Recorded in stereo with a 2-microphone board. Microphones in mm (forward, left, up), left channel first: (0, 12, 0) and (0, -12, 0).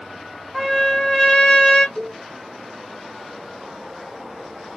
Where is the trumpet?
20° left (ahead or behind), 1.4 m.